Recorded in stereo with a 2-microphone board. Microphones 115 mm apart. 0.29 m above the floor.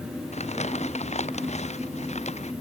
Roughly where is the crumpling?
Left.